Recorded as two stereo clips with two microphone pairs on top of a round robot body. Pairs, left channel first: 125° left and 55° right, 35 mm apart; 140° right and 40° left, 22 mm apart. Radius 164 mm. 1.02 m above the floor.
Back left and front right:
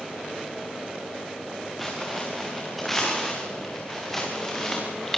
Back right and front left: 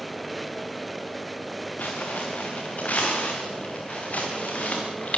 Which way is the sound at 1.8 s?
145° right.